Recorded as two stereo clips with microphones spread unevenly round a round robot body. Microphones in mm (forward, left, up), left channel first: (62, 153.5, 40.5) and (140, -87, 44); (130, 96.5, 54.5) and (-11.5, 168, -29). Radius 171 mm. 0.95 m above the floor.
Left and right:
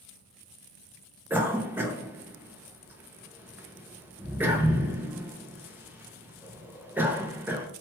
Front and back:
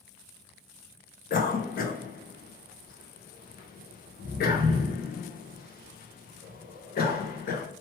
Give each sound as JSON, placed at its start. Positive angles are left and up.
{"t": 1.3, "sound": "a cough", "azimuth_deg": 0, "distance_m": 0.6}